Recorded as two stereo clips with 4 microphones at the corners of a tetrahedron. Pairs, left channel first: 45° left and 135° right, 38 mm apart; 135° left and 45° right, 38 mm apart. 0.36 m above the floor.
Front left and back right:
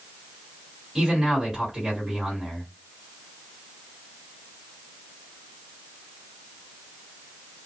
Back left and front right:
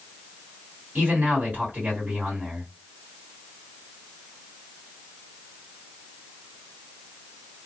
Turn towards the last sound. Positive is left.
turn(degrees=-65)